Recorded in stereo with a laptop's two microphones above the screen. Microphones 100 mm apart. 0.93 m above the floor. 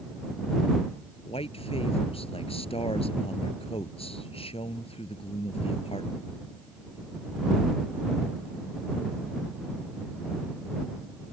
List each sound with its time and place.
1.3 s a man speaking: 70° left (ahead or behind)